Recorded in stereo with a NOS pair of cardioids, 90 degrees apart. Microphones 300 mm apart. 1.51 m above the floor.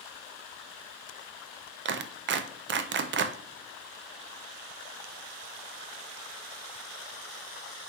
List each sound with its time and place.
1.9 s a clap: 40° right, 0.6 m